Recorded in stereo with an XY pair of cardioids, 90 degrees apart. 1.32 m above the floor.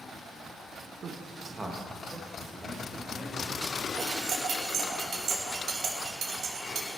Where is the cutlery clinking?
65° right, 2 m.